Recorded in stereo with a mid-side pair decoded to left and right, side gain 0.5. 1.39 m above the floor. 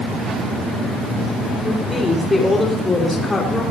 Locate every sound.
1.6 s a woman speaking: 15° left, 4.5 m